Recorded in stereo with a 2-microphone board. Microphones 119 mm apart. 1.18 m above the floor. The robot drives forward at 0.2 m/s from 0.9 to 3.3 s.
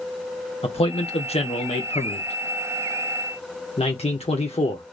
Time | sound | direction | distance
0.6 | a man speaking | 55° left (ahead or behind) | 1.2 m